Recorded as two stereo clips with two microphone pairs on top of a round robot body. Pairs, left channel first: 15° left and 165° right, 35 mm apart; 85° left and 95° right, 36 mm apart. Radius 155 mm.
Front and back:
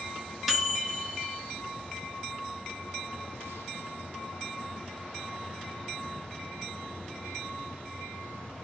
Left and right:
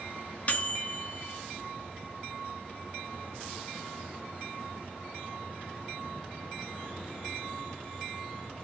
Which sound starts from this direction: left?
A microwave, at 0.5 s.